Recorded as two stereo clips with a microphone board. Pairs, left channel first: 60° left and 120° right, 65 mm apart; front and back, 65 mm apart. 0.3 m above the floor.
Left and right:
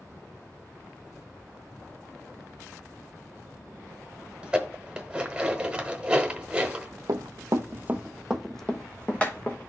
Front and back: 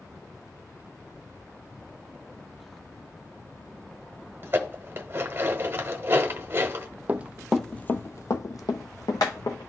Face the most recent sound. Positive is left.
turn(degrees=-5)